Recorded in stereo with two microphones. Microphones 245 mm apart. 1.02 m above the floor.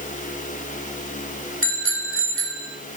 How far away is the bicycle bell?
About 4 m.